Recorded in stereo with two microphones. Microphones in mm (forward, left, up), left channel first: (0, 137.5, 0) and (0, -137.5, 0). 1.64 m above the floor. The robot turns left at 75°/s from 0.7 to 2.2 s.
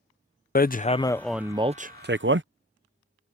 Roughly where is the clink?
No clink in this recording.